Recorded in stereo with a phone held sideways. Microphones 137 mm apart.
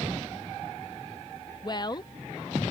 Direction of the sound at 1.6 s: 30° left (ahead or behind).